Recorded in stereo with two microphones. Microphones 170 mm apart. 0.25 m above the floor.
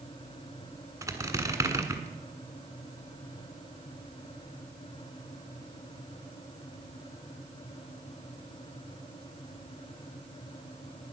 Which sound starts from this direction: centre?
A squeak, at 1.0 s.